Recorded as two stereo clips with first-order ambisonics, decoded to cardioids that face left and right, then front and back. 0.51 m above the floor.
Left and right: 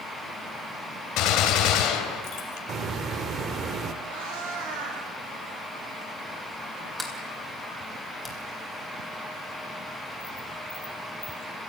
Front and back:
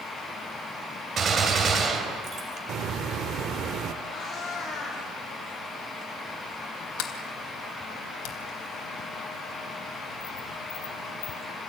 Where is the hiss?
140° right, 1.3 m.